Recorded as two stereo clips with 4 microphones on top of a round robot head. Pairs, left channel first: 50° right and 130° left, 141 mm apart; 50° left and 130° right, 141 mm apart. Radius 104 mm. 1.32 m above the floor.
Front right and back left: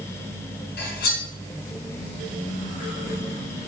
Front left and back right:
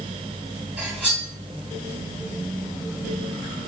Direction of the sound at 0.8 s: 50° right.